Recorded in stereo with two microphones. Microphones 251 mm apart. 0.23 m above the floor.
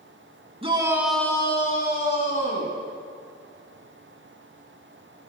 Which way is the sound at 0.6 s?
25° right (ahead or behind).